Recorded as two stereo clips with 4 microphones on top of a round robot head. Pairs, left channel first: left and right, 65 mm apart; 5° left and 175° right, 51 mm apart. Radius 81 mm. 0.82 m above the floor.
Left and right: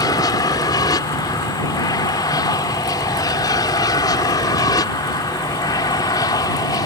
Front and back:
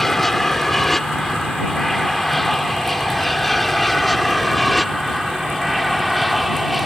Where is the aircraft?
85° left; by 6.9 s 95° left.